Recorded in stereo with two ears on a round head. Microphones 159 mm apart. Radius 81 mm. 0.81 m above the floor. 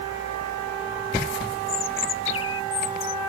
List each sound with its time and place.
1.7 s a bird: 75° left (ahead or behind)